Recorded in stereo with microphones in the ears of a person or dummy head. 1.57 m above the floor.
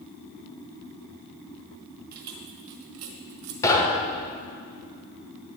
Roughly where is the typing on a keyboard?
I don't hear typing on a keyboard.